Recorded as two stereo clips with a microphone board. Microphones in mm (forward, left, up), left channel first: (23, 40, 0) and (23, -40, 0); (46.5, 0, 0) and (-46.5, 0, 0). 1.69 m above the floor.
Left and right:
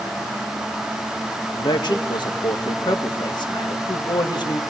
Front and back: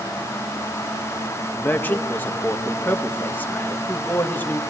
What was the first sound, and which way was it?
A man speaking, 70° left.